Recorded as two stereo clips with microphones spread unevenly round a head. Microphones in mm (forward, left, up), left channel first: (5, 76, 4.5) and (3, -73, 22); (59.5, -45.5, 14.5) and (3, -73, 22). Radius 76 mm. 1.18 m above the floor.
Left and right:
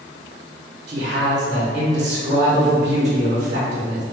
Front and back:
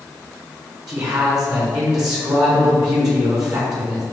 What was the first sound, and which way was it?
A man speaking, 135° right.